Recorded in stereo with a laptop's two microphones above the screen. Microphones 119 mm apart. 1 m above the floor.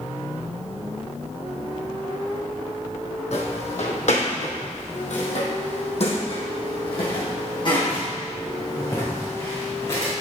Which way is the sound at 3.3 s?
60° left (ahead or behind).